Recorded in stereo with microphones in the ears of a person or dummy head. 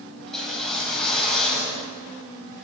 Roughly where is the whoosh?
Centre.